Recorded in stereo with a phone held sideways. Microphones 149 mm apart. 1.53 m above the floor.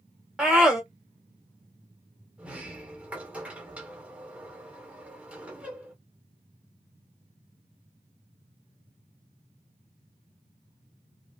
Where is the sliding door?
10° right (ahead or behind), 1.2 m.